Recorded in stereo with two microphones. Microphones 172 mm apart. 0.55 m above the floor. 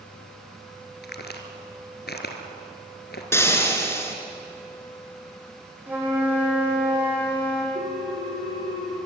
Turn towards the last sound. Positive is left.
turn(degrees=-75)  # may be behind; listen again after turning